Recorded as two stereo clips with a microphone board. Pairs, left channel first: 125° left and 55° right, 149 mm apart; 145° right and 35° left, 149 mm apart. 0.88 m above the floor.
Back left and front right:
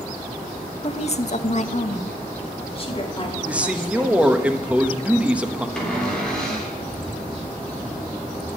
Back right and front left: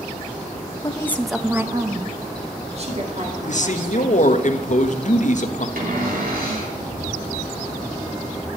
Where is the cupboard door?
40° left, 3.5 m.